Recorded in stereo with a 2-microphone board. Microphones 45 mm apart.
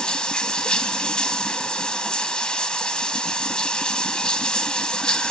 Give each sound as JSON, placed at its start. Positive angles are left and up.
{"t": 0.0, "sound": "running water", "side_deg": 20, "distance_m": 1.7}